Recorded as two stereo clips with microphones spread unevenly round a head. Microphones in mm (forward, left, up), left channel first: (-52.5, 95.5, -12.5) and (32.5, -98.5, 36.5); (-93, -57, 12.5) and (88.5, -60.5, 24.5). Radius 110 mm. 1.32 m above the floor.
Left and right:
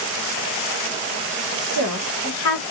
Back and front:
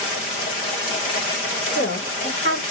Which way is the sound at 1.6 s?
125° left.